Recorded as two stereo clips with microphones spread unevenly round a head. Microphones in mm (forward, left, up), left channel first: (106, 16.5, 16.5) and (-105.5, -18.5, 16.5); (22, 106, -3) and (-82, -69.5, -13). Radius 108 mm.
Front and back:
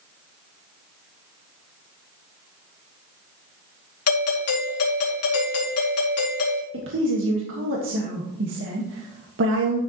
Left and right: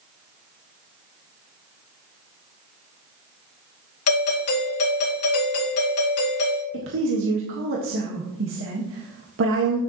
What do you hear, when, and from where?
4.1 s a doorbell: 30° left, 2.5 m
6.7 s a woman speaking: 140° right, 1.6 m